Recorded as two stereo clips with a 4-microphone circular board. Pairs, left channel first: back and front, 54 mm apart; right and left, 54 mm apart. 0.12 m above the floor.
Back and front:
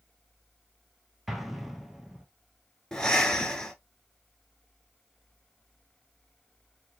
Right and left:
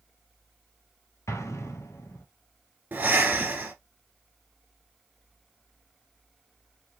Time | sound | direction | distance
1.3 | an explosion | 85° right | 0.9 m
2.9 | breathing | 110° left | 1.3 m